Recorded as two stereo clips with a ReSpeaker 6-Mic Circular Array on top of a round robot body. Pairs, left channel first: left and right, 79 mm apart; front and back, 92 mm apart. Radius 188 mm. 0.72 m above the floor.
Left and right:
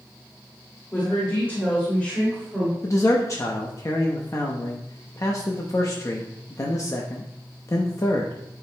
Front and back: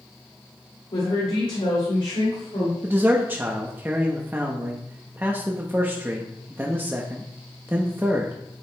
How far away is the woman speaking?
About 2.5 m.